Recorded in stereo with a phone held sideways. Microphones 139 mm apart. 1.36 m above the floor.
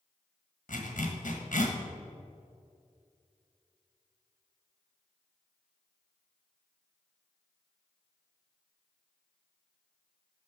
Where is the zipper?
70° left (ahead or behind), 1.1 m.